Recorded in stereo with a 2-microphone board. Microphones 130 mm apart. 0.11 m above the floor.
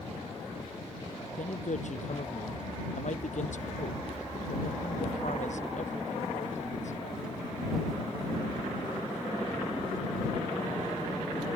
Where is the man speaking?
70° left (ahead or behind).